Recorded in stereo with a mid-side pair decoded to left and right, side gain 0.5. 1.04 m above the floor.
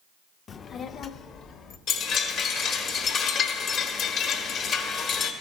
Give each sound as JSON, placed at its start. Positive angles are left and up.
{"t": 0.5, "sound": "a child speaking", "azimuth_deg": 45, "distance_m": 0.5}
{"t": 1.9, "sound": "a chime", "azimuth_deg": 65, "distance_m": 1.3}